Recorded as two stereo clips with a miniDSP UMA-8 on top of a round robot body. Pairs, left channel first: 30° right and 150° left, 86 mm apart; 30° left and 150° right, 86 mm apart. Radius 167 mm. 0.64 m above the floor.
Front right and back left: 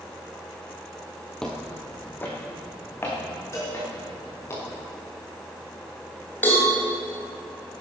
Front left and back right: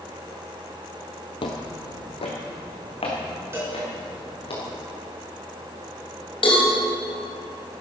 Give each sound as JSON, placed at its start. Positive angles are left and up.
{"t": 1.4, "sound": "footsteps", "azimuth_deg": 50, "distance_m": 1.1}
{"t": 3.5, "sound": "a cowbell", "azimuth_deg": -90, "distance_m": 5.0}
{"t": 6.4, "sound": "a cowbell", "azimuth_deg": 40, "distance_m": 3.5}